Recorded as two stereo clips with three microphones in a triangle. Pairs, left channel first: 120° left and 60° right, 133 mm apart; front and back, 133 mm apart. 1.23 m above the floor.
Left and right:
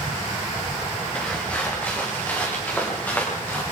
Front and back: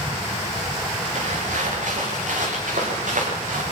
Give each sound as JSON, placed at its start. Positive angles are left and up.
{"t": 1.1, "sound": "footsteps", "azimuth_deg": -160, "distance_m": 9.0}